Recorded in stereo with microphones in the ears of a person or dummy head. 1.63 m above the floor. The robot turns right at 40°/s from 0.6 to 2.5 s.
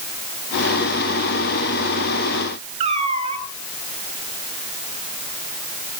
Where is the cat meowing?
40° right (ahead or behind), 4 m.